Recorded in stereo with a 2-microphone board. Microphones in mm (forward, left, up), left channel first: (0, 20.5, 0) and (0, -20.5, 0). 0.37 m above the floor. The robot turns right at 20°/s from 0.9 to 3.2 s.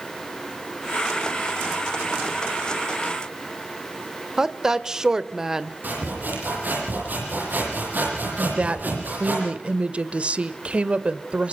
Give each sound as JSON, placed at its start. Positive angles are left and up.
{"t": 4.4, "sound": "a woman speaking", "side_deg": -15, "distance_m": 1.1}
{"t": 5.8, "sound": "sawing", "side_deg": -50, "distance_m": 9.5}
{"t": 8.4, "sound": "a woman speaking", "side_deg": -30, "distance_m": 1.2}